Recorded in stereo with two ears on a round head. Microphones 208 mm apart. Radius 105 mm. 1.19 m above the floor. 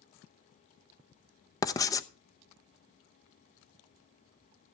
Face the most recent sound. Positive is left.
turn(degrees=15)  # may be behind; listen again after turning